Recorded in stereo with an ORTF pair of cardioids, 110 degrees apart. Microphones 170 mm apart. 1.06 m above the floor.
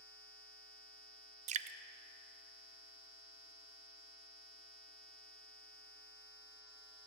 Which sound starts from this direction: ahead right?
Dripping, at 1.5 s.